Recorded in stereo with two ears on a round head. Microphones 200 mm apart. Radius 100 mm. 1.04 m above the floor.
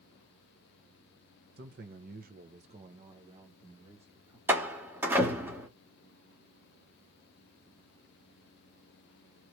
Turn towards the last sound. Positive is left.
turn(degrees=-10)  # may be behind; listen again after turning